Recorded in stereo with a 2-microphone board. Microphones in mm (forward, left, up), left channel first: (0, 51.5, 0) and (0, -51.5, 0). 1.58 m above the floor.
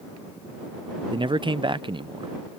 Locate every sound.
1.1 s a man speaking: 50° right (ahead or behind)